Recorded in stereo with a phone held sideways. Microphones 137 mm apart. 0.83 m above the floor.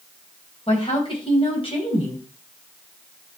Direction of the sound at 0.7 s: 40° left (ahead or behind).